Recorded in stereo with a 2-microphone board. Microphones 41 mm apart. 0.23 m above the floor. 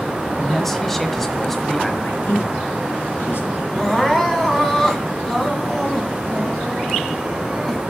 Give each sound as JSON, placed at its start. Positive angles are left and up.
{"t": 0.4, "sound": "a man speaking", "side_deg": 5, "distance_m": 0.9}
{"t": 2.0, "sound": "a man speaking", "side_deg": 70, "distance_m": 3.0}
{"t": 3.8, "sound": "crying", "side_deg": 10, "distance_m": 1.7}